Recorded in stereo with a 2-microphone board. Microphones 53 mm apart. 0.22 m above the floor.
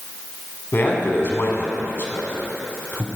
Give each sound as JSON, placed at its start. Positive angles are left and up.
{"t": 0.7, "sound": "a man speaking", "side_deg": 45, "distance_m": 1.4}